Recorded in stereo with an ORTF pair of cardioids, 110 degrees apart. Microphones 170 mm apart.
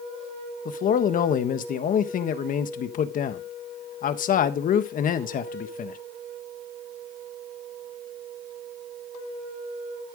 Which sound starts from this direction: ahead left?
A man speaking, at 0.7 s.